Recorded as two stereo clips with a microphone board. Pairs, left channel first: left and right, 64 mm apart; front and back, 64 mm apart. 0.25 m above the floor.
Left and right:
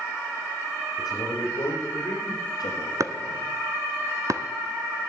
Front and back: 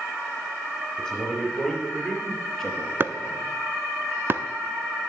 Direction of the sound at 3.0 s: 125° right.